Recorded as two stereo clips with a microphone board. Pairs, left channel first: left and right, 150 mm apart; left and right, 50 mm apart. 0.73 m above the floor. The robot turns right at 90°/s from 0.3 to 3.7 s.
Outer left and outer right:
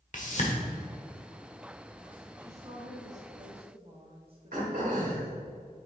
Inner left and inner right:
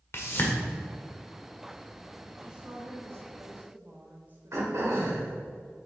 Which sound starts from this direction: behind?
A woman speaking, at 2.4 s.